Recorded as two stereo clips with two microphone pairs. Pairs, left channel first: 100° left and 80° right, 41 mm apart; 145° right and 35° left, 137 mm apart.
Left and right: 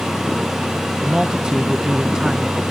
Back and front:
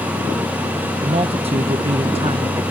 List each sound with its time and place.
1.0 s a man speaking: 10° right